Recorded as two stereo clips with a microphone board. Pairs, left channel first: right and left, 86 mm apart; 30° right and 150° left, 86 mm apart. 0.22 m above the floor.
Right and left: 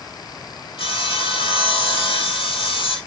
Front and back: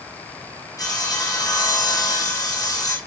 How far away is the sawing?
About 2 m.